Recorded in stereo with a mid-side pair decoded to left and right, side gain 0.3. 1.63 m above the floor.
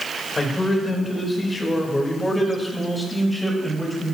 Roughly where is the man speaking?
Ahead left.